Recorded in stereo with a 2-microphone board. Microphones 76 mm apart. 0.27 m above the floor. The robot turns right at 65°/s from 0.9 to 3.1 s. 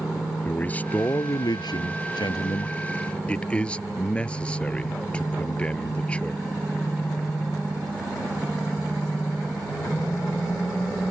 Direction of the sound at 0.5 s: 20° left.